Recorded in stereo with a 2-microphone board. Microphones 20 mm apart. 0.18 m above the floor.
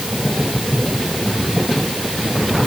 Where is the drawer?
I don't hear a drawer.